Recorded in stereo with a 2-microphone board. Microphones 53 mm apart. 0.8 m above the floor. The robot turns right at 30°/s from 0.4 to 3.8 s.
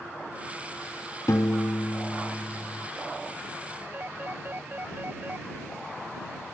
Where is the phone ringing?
40° right (ahead or behind).